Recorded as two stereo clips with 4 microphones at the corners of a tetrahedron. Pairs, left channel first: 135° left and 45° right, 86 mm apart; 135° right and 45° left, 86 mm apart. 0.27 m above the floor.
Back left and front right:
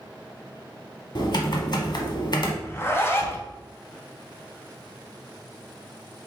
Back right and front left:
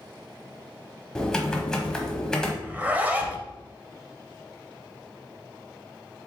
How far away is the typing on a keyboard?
About 0.9 m.